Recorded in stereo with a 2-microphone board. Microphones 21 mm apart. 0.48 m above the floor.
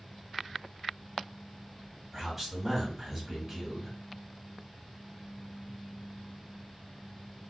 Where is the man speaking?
Centre (ahead or behind), 1.3 m.